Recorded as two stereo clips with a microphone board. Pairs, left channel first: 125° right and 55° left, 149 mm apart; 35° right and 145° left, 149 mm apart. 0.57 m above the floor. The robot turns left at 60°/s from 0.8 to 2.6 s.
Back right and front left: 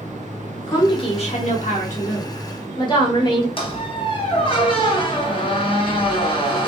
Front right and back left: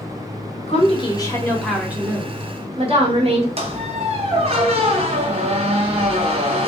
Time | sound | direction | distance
0.7 | a woman speaking | 70° right | 0.9 m
3.6 | a squeak | 175° right | 0.7 m